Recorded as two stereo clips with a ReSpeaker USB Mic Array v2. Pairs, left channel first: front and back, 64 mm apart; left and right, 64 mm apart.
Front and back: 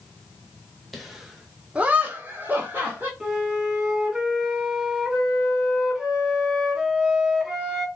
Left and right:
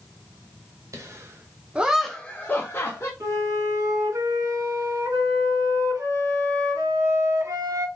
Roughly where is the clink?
I don't hear a clink.